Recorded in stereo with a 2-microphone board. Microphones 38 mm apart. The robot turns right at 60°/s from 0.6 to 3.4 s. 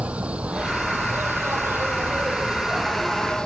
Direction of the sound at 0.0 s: 145° right.